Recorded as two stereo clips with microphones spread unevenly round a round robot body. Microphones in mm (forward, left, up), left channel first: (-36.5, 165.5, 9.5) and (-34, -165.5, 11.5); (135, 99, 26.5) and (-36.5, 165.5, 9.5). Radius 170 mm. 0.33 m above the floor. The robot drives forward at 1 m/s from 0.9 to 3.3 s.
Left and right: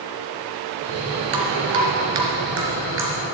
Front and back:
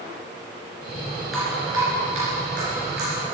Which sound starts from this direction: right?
Dripping, at 1.3 s.